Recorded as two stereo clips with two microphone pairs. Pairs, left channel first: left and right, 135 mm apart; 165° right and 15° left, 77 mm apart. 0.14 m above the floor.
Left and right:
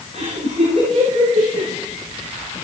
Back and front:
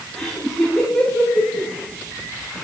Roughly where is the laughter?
Right.